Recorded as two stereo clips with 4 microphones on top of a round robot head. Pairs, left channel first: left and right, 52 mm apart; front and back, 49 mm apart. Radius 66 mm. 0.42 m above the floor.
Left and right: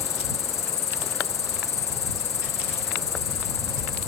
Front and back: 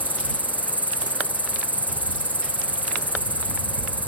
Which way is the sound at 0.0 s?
55° left.